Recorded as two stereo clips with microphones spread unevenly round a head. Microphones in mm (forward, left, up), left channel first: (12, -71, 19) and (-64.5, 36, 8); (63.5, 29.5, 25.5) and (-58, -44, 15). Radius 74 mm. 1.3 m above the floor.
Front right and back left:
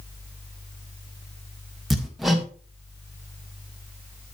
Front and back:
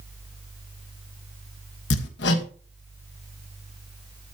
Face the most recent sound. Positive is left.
turn(degrees=35)